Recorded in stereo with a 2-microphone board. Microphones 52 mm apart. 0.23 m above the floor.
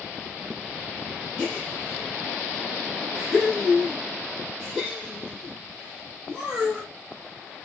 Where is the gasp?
15° right (ahead or behind), 5 m.